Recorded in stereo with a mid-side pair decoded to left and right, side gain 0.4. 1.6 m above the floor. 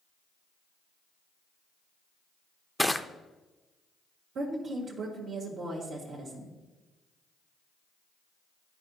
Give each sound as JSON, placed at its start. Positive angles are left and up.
{"t": 2.8, "sound": "crushing", "azimuth_deg": 5, "distance_m": 0.5}
{"t": 4.3, "sound": "a woman speaking", "azimuth_deg": -70, "distance_m": 1.7}